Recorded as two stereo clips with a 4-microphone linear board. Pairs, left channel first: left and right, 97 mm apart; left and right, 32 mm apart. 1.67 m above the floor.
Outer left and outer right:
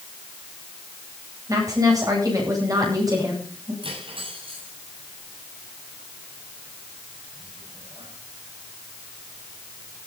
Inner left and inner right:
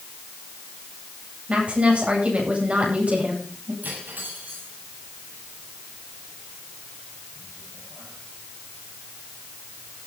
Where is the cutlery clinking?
65° right (ahead or behind), 8.5 m.